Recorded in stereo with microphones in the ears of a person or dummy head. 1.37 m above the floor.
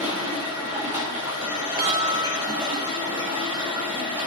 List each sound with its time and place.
0.0 s running water: 10° right (ahead or behind), 8.5 m
1.8 s a chime: 55° right (ahead or behind), 3.5 m